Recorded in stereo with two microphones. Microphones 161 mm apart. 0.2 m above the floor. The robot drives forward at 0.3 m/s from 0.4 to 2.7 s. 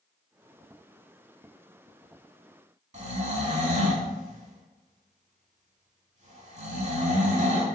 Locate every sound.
2.9 s snoring: 45° right (ahead or behind), 0.6 m